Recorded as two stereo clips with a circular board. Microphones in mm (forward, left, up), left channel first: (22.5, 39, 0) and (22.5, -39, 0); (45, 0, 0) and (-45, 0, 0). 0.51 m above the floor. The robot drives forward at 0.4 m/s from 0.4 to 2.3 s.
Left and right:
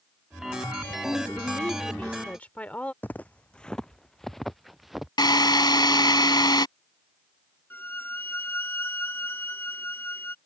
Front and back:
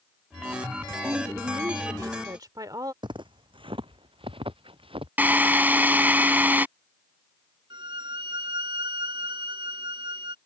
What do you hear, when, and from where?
1.0 s a woman speaking: 135° left; by 2.9 s 155° left
3.0 s footsteps: 150° left; by 5.1 s straight behind
5.2 s a drill: 110° left
7.7 s a violin: 150° left